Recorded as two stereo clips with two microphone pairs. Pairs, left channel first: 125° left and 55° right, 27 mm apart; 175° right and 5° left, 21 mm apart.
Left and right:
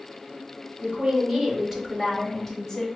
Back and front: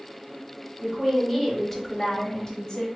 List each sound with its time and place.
0.8 s a woman speaking: 75° right, 1.2 m; by 2.9 s 175° right, 1.0 m